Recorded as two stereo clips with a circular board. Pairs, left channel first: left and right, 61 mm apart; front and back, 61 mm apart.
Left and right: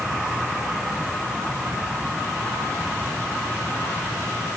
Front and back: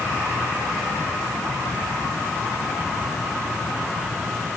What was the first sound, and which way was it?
Only background noise.